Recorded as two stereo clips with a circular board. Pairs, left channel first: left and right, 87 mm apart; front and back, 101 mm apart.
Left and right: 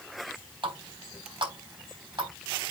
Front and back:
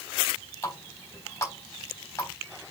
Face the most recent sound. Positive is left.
turn(degrees=-60)